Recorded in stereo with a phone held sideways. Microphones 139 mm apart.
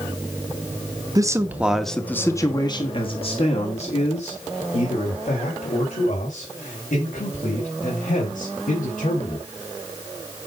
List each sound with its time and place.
1.1 s a man speaking: 25° right (ahead or behind), 1.3 m; by 9.5 s 75° left (ahead or behind), 7 m